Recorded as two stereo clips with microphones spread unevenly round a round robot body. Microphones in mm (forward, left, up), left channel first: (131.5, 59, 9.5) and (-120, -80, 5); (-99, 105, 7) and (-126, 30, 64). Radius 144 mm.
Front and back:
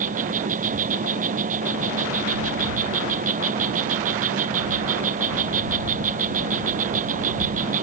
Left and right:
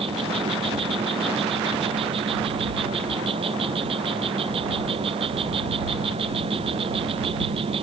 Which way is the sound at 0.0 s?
85° right.